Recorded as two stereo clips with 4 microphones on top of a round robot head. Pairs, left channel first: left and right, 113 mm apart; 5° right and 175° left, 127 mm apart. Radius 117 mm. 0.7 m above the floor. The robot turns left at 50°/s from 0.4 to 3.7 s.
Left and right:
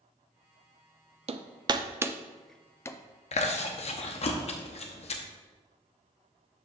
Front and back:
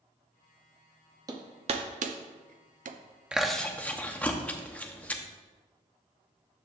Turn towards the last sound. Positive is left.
turn(degrees=75)